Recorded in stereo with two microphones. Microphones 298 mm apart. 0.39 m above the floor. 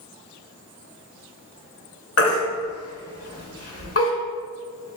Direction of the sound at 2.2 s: 50° left (ahead or behind).